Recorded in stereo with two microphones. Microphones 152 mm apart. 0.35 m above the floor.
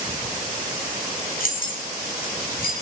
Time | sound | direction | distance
1.4 | keys jangling | 65° left (ahead or behind) | 1.8 m